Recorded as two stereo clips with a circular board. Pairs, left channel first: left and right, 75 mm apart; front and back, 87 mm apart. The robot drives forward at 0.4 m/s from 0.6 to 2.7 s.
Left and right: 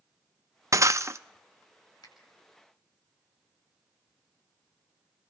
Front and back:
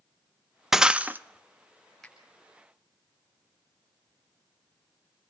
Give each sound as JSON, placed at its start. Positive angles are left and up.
{"t": 0.7, "sound": "breaking glass", "azimuth_deg": -100, "distance_m": 0.5}
{"t": 2.0, "sound": "a finger snap", "azimuth_deg": 85, "distance_m": 6.5}